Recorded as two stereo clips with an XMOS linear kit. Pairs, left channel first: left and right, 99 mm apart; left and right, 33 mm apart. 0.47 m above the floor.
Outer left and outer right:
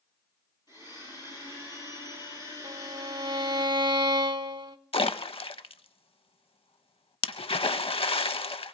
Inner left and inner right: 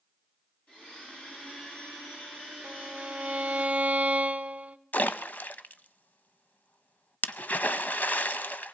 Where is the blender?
45° left (ahead or behind), 8.5 m.